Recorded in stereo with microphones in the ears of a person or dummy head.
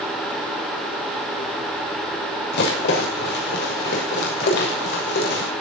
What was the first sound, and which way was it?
A rattle, 65° left (ahead or behind).